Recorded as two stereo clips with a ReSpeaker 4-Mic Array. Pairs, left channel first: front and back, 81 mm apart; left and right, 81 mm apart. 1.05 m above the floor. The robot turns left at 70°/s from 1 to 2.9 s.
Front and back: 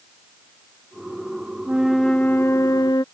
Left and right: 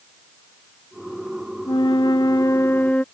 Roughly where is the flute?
Left.